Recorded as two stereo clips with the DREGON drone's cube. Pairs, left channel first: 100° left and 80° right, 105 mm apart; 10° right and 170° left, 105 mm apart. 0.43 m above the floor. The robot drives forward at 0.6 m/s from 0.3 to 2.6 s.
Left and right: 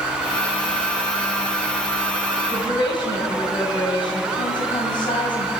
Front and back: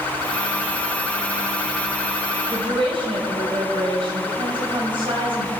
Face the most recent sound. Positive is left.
turn(degrees=140)